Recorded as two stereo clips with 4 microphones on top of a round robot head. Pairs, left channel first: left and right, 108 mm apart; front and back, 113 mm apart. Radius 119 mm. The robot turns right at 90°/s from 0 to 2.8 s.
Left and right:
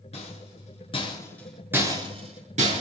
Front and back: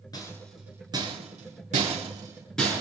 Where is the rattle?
55° left, 7.5 m; by 2.8 s 65° right, 7.5 m.